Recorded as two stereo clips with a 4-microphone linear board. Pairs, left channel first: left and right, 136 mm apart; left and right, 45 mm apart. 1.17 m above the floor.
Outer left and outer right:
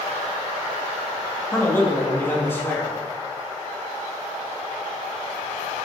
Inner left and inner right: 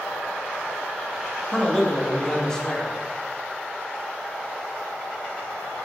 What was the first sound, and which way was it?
A man speaking, 15° left (ahead or behind).